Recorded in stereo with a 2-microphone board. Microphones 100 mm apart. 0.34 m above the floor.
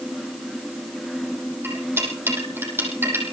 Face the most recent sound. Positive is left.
turn(degrees=-20)  # may be behind; listen again after turning